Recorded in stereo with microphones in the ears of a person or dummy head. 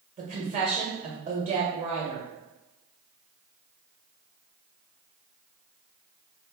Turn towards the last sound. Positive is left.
turn(degrees=-40)  # may be behind; listen again after turning